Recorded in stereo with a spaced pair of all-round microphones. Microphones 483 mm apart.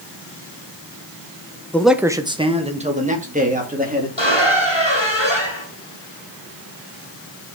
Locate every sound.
1.7 s a man speaking: 5° left (ahead or behind), 0.6 m; by 4.1 s 15° right (ahead or behind), 2.5 m
4.2 s a squeak: 60° left (ahead or behind), 3 m